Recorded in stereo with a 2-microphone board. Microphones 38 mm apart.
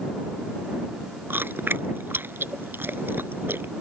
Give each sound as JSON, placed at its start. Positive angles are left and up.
{"t": 1.3, "sound": "chewing", "side_deg": -70}